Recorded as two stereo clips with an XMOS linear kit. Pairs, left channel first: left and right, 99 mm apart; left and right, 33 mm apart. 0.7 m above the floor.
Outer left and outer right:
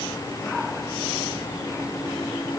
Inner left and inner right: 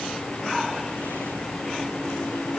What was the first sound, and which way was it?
Only background noise.